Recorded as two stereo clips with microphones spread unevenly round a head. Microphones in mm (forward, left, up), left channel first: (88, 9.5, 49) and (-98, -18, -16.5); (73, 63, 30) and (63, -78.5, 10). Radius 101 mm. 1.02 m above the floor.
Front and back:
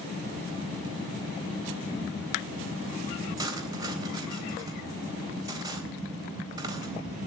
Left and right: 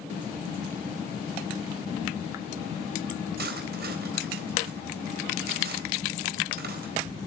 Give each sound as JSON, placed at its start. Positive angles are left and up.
{"t": 3.4, "sound": "cutlery clinking", "azimuth_deg": -100, "distance_m": 3.5}